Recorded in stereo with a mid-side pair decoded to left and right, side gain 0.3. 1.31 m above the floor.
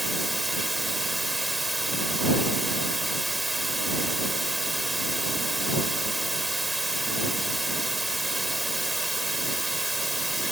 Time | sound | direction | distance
0.0 | running water | 15° right | ?